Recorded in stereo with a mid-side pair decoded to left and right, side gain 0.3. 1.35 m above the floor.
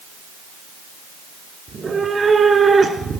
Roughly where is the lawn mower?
I don't hear a lawn mower.